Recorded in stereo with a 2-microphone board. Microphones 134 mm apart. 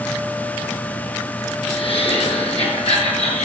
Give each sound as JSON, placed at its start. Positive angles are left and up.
{"t": 1.6, "sound": "laughter", "side_deg": 45, "distance_m": 5.5}